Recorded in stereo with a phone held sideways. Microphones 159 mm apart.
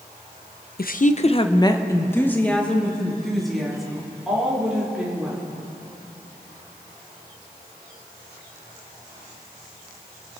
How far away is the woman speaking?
About 0.6 m.